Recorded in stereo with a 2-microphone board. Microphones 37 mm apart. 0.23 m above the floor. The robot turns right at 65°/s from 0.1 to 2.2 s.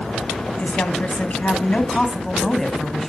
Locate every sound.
0.6 s a woman speaking: 65° left, 1.3 m; by 3.1 s 170° left, 1.3 m